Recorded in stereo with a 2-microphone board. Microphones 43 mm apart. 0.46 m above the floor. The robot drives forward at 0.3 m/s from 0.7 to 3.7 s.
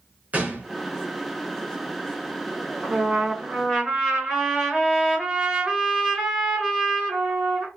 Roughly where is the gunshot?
Right.